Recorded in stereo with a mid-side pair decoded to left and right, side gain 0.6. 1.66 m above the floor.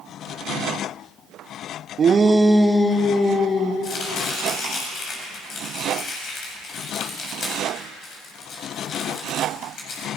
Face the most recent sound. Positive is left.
turn(degrees=50)